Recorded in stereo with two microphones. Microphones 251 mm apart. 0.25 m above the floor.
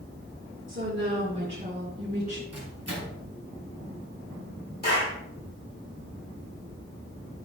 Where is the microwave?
75° right (ahead or behind), 3.5 m.